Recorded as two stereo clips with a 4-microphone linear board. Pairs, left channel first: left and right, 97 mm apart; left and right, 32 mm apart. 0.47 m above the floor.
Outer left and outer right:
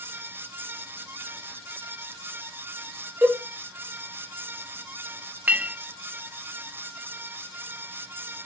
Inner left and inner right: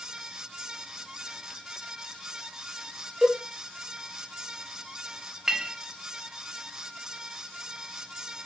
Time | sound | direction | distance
3.2 | a cowbell | 20° right (ahead or behind) | 0.8 m
5.5 | a clink | 15° right (ahead or behind) | 0.6 m